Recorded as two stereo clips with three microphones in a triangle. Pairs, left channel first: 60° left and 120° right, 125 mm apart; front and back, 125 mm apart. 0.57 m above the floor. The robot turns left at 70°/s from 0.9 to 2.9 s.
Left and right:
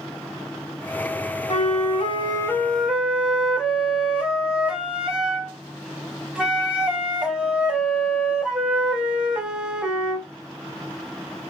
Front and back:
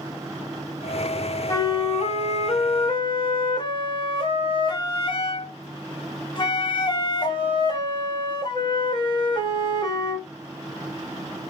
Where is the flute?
60° left, 0.6 m; by 10.3 s 40° right, 0.6 m.